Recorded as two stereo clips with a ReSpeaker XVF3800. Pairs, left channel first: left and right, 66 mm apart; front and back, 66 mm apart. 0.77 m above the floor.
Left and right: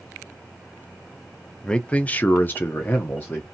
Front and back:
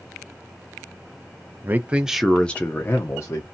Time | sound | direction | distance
1.6 | a man speaking | 160° left | 0.5 m